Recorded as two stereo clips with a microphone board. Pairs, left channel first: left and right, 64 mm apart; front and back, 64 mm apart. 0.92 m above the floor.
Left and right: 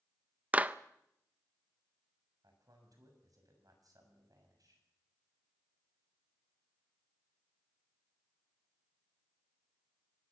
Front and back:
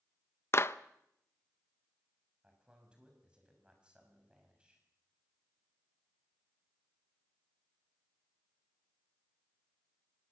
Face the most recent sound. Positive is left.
turn(degrees=-105)